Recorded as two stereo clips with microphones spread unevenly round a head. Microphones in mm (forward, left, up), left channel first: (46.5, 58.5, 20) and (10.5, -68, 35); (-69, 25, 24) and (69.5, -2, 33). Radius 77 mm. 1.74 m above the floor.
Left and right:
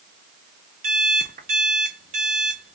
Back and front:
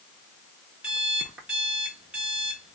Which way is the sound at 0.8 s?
95° right.